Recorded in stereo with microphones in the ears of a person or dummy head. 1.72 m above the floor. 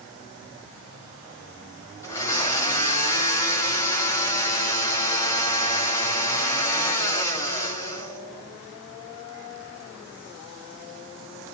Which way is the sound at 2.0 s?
15° left (ahead or behind).